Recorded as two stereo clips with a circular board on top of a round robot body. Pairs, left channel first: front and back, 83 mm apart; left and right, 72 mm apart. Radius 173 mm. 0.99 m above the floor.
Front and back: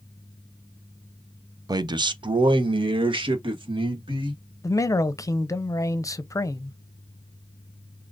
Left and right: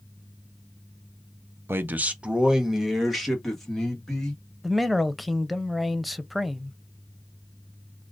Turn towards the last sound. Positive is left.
turn(degrees=0)